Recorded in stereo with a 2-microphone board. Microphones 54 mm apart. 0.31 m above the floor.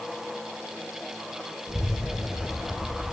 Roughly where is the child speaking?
Right.